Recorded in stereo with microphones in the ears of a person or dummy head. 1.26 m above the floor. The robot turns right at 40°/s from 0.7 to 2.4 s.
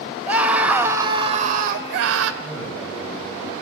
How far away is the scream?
About 1.5 m.